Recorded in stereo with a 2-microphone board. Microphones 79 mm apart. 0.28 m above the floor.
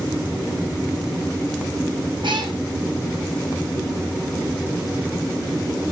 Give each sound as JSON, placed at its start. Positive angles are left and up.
{"t": 2.2, "sound": "a cat meowing", "side_deg": -80, "distance_m": 7.0}